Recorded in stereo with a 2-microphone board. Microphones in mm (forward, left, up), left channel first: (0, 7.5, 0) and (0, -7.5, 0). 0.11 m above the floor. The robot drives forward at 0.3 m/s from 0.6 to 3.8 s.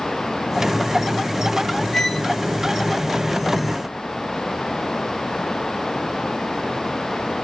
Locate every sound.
1.9 s a violin: 35° left (ahead or behind), 4.5 m